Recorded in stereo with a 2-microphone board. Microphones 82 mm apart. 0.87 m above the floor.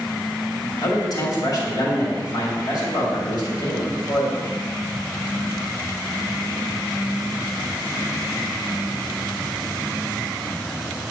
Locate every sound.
0.8 s a man speaking: 55° left (ahead or behind), 2.5 m